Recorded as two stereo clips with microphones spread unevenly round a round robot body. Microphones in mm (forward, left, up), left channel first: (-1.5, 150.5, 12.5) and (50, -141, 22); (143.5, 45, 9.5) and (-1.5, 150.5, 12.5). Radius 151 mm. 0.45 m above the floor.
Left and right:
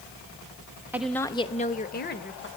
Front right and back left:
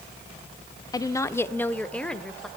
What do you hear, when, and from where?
0.9 s a woman speaking: straight ahead, 0.8 m; by 2.5 s 50° left, 1.9 m